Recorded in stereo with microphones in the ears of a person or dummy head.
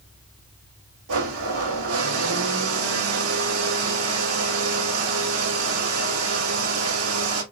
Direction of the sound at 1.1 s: 85° right.